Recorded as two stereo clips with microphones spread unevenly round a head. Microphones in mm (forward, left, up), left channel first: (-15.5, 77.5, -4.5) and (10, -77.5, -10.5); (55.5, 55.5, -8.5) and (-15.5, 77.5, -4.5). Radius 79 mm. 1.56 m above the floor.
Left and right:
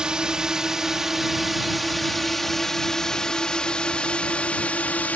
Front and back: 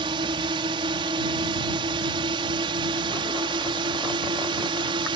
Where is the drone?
165° right; by 5.2 s straight behind.